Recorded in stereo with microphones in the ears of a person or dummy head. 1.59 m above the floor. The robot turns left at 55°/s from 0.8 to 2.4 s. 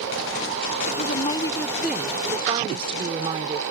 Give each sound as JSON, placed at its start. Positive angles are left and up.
{"t": 0.9, "sound": "a woman speaking", "azimuth_deg": 55}